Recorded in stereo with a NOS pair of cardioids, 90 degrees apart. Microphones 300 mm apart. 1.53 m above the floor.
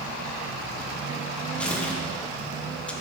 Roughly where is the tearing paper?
Ahead.